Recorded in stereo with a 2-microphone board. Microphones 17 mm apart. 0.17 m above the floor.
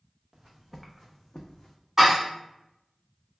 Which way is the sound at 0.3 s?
20° right (ahead or behind).